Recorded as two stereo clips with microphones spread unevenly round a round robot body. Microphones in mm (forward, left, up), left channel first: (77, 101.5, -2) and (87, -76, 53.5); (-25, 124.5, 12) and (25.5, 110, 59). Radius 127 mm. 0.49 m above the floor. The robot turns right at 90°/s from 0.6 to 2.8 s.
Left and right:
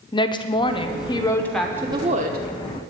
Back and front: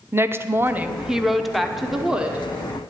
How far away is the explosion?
No explosion in this recording.